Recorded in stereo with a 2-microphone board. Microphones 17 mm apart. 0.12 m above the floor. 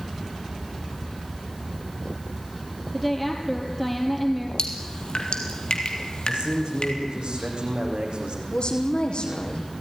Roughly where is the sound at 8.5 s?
Left.